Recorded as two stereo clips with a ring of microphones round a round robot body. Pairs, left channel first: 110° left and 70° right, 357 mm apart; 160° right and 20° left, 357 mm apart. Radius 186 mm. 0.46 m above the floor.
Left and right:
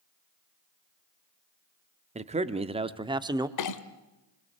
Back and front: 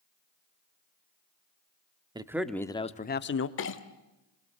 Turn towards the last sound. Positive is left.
turn(degrees=150)